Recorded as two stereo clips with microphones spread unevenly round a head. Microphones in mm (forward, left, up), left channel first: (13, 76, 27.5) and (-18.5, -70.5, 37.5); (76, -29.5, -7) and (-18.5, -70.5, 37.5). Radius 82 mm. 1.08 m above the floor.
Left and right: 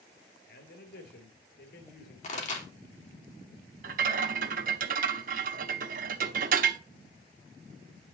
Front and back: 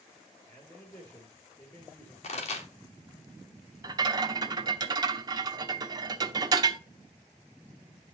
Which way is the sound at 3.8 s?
130° right.